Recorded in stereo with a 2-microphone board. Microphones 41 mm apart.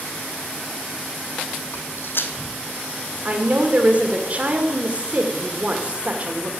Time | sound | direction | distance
1.7 | footsteps | 60° left (ahead or behind) | 1.2 m
3.2 | a woman speaking | 35° right (ahead or behind) | 2 m